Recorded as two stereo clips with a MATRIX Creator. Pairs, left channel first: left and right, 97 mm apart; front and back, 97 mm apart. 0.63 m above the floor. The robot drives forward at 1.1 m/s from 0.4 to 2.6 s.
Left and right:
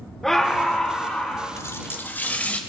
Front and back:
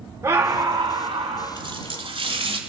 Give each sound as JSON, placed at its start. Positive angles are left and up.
{"t": 0.2, "sound": "a scream", "azimuth_deg": 175, "distance_m": 0.8}
{"t": 1.6, "sound": "a running tap", "azimuth_deg": 150, "distance_m": 1.1}